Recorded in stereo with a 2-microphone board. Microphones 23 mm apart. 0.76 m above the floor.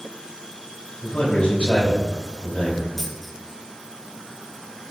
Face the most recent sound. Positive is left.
turn(degrees=5)  # may be behind; listen again after turning